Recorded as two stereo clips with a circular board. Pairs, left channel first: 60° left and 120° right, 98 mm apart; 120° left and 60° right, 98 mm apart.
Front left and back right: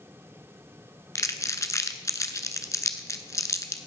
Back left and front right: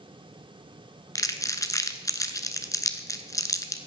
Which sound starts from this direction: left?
Crumpling, at 1.1 s.